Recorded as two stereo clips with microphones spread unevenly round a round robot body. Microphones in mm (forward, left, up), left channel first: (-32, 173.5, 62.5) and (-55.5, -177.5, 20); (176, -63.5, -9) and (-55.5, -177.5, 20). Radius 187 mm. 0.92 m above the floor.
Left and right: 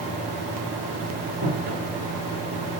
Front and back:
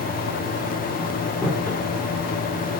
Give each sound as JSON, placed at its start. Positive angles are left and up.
{"t": 1.4, "sound": "footsteps", "azimuth_deg": -55, "distance_m": 7.0}